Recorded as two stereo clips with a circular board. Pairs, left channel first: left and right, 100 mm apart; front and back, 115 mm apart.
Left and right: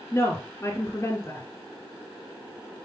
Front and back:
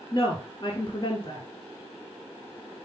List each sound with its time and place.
0.1 s a woman speaking: 35° left, 1.5 m